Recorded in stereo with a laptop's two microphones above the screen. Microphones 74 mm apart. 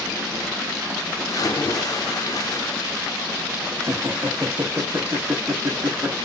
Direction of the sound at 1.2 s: 50° left (ahead or behind).